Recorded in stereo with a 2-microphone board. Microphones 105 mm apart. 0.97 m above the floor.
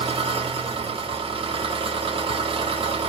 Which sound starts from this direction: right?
An engine running, at 0.0 s.